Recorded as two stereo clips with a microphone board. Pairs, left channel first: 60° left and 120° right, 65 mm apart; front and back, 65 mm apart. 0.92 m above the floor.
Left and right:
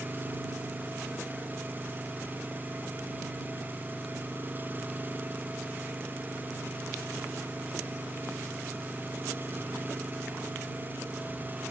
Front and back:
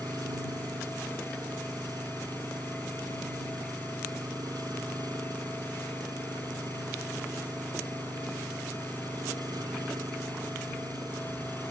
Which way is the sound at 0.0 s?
175° right.